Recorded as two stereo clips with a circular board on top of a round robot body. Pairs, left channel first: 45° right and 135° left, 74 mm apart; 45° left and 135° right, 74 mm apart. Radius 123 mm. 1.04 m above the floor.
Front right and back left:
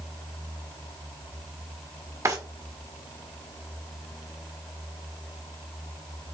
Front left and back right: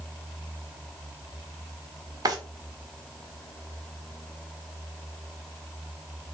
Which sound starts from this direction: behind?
A drawer, at 2.2 s.